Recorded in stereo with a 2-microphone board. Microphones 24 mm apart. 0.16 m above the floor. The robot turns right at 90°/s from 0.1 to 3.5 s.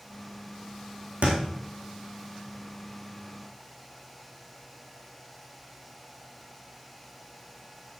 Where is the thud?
75° right (ahead or behind), 3.5 m; by 1.4 s 85° right, 3.5 m.